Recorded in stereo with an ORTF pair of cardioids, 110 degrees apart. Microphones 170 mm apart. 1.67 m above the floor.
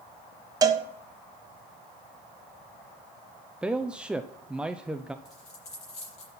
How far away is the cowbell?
About 1.2 m.